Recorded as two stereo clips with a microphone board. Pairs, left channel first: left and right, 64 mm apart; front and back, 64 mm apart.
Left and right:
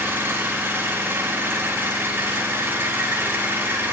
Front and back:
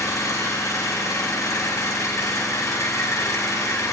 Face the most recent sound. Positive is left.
turn(degrees=-35)